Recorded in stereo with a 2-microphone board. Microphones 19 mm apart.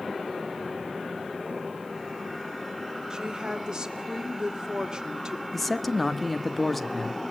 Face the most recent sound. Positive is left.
turn(degrees=10)  # may be behind; listen again after turning